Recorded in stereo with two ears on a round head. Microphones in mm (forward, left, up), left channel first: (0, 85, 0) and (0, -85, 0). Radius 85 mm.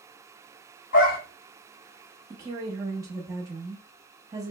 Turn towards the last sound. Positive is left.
turn(degrees=-20)  # may be behind; listen again after turning